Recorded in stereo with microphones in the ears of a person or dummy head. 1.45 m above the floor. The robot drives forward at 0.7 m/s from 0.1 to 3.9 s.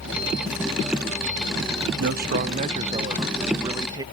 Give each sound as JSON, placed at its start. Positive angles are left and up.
{"t": 2.0, "sound": "a man speaking", "side_deg": -55}